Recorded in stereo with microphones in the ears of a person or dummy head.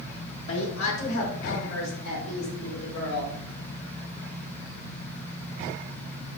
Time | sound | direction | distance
0.5 | a woman speaking | 75° left (ahead or behind) | 1.0 m